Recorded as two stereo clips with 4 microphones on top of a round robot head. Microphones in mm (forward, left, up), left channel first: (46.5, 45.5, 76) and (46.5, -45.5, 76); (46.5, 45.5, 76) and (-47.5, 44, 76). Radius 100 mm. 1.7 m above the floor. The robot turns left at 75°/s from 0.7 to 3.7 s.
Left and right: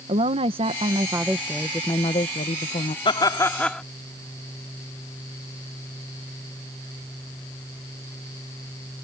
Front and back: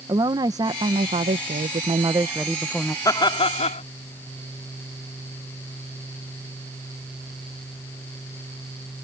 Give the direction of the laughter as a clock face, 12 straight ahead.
10 o'clock.